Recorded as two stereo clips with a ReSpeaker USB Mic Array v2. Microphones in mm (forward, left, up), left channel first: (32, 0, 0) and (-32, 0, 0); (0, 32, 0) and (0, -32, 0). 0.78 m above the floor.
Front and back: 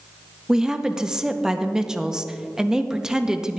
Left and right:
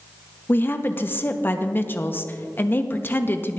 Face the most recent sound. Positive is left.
turn(degrees=110)